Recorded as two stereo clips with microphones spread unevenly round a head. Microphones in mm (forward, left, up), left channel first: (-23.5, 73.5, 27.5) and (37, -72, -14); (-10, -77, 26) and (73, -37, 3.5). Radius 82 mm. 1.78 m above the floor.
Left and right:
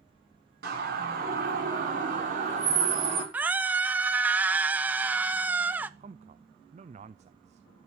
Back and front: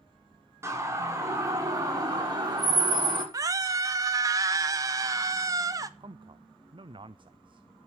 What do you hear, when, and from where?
0.6 s a siren: 35° right, 7 m; by 3.2 s 15° right, 7 m
3.3 s a scream: 40° left, 0.7 m
6.0 s a man speaking: 15° right, 0.7 m